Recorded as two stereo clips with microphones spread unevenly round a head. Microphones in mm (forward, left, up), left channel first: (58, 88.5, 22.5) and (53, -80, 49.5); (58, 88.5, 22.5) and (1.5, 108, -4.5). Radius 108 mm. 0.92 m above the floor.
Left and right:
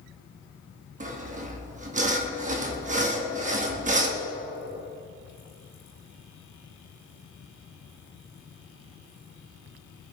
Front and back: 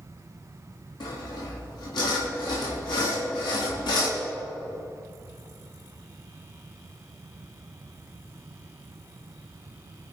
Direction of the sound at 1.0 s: 45° right.